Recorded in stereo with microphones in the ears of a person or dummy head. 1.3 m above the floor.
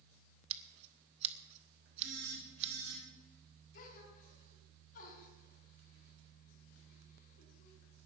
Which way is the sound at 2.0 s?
85° right.